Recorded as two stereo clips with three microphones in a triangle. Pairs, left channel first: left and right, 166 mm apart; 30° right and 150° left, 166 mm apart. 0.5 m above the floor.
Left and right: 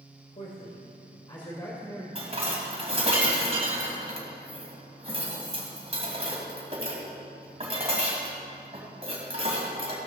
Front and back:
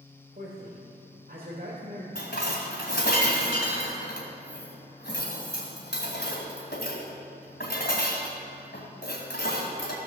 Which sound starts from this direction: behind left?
A man speaking, at 0.3 s.